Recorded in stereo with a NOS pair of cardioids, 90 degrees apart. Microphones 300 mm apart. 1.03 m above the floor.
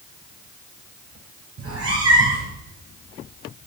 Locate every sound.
1.6 s a cat meowing: 55° right, 3.5 m